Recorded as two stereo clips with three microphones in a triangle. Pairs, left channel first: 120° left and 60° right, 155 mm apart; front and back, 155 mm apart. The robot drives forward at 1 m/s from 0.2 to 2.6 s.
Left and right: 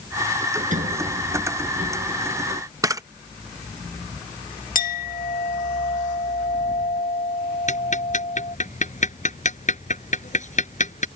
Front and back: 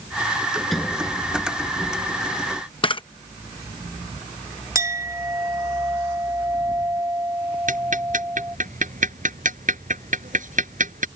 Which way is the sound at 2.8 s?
10° right.